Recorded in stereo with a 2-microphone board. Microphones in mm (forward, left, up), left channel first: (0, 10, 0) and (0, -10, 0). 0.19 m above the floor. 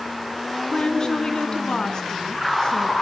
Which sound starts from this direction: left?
A woman speaking, at 0.7 s.